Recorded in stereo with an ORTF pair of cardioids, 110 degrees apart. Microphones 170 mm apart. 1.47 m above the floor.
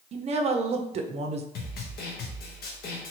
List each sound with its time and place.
0.1 s a woman speaking: 35° right, 0.5 m
1.6 s a snare drum: 65° left, 0.9 m